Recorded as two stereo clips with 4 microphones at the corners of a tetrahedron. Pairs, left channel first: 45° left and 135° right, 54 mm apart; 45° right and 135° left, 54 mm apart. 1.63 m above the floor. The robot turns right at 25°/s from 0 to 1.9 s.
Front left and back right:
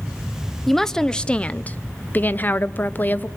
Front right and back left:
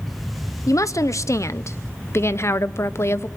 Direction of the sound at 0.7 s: 40° right.